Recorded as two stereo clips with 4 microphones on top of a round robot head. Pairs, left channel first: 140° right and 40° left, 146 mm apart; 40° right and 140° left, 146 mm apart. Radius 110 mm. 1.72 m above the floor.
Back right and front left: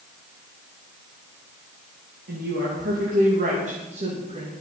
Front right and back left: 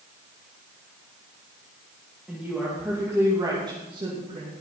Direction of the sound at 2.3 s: 60° left.